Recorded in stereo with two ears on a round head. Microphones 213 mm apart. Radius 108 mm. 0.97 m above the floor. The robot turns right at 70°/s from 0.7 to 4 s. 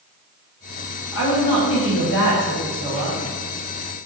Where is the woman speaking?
65° left, 1.7 m; by 3.2 s 150° right, 1.7 m.